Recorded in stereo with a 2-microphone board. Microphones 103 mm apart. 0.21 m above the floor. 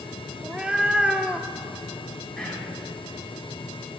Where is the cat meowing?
10° right (ahead or behind), 0.5 m.